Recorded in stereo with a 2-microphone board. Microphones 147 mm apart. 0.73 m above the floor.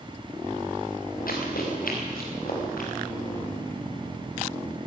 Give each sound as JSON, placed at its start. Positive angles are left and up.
{"t": 1.3, "sound": "running footsteps", "side_deg": 80, "distance_m": 4.5}